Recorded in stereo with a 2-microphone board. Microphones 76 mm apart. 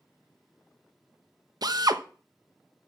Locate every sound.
1.6 s a drill: 60° right (ahead or behind), 1.0 m